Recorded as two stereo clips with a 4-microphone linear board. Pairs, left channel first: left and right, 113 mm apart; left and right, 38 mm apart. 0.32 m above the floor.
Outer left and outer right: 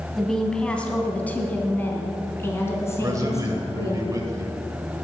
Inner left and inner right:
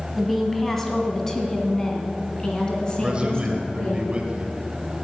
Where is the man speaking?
30° right (ahead or behind), 1.1 m.